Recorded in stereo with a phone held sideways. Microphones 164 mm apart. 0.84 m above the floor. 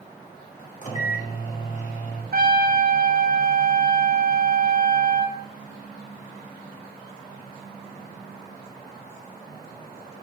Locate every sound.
0.8 s a microwave: 50° left (ahead or behind), 1.2 m
2.3 s a trumpet: 70° right (ahead or behind), 0.7 m